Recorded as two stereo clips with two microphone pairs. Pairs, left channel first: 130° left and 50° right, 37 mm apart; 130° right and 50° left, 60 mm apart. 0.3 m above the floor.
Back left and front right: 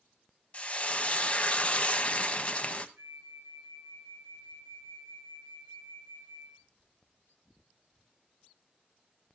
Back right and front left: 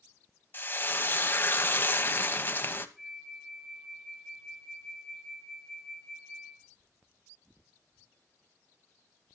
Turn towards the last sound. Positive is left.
turn(degrees=-35)